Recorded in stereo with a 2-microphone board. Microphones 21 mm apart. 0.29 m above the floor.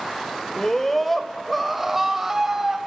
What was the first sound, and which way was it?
A scream, 20° left (ahead or behind).